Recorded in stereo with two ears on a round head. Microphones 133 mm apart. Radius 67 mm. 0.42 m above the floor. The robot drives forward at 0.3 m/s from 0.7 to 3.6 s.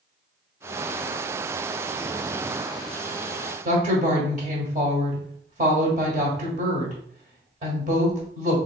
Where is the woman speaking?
50° right (ahead or behind), 1.2 m.